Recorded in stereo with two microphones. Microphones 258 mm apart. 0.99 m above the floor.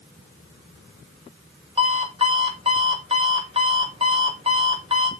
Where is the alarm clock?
20° right (ahead or behind), 1.5 m.